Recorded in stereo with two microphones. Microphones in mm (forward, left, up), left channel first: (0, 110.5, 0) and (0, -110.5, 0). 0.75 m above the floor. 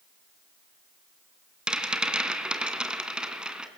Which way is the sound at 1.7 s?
5° right (ahead or behind).